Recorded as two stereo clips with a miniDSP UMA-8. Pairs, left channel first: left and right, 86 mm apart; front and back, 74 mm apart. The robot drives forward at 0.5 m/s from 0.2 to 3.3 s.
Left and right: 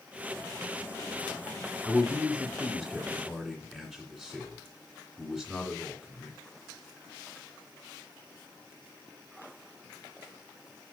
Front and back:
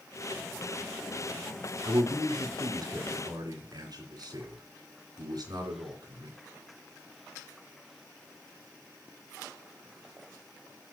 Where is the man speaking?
Straight behind, 2 m.